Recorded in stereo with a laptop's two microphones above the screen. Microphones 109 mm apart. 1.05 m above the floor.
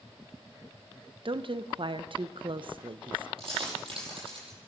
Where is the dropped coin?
55° right (ahead or behind), 8.5 m.